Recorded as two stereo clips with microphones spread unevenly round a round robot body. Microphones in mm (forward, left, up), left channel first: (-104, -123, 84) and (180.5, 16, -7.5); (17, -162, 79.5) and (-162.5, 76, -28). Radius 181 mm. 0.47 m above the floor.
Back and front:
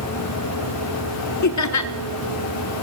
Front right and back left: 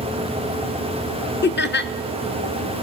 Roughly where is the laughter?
Behind right.